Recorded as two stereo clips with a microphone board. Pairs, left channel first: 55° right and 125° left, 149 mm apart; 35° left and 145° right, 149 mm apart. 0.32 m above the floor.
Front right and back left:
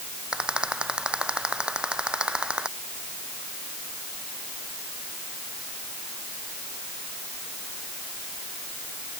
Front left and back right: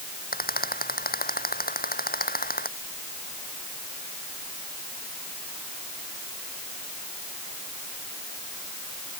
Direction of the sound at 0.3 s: 40° left.